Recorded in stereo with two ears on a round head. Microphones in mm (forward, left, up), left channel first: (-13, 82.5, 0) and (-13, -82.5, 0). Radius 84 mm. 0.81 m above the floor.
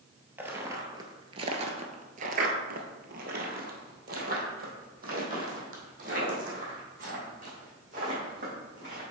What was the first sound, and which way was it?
Footsteps, 10° right (ahead or behind).